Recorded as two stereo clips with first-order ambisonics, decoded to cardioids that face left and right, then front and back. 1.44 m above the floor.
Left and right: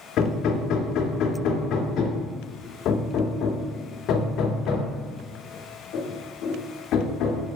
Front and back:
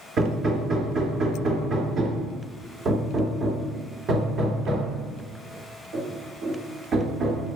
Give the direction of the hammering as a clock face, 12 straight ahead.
8 o'clock.